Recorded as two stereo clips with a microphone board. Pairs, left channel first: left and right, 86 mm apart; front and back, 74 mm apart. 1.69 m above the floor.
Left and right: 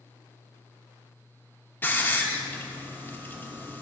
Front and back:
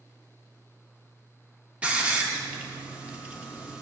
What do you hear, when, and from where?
1.8 s a hiss: 125° left, 1.1 m